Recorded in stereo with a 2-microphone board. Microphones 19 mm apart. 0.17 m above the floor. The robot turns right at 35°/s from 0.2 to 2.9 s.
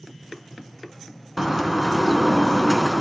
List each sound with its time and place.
1.4 s a bird: 25° right, 1.1 m; by 3.0 s 30° left, 1.1 m